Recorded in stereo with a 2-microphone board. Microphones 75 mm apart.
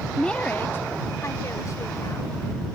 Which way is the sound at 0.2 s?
5° left (ahead or behind).